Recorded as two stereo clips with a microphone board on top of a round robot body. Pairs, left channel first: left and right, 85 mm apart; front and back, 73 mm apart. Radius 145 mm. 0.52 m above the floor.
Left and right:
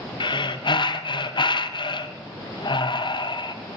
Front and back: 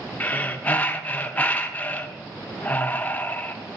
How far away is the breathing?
About 0.9 m.